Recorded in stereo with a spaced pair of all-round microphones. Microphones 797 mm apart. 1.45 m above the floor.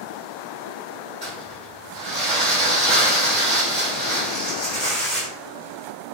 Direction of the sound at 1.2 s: 70° right (ahead or behind).